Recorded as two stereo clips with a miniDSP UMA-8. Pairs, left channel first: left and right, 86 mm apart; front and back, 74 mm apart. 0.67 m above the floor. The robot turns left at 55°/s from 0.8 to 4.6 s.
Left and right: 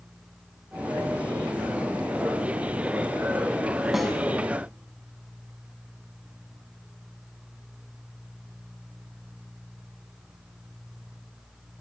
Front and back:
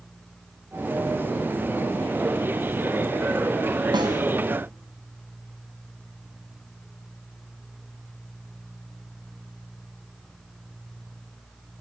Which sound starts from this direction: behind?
A snare drum, at 3.9 s.